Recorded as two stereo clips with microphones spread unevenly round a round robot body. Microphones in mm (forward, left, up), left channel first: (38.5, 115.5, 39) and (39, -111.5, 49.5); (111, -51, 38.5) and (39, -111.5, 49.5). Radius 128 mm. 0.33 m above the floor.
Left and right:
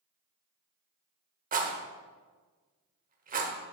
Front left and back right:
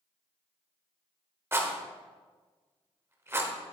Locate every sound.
1.5 s a rattle: 85° right, 1.4 m